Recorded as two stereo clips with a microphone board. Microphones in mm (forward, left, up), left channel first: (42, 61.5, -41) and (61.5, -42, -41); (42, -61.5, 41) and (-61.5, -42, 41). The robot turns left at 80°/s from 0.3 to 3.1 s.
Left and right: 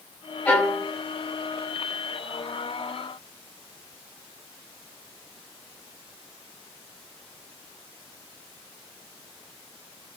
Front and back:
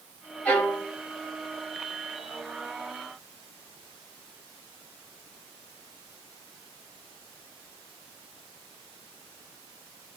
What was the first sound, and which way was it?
A violin, 55° left.